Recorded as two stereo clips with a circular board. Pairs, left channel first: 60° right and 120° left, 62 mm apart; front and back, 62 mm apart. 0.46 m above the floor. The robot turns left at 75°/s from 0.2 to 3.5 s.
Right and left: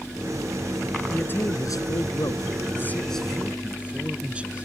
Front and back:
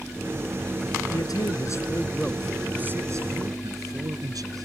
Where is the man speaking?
10° left; by 4.7 s 170° right.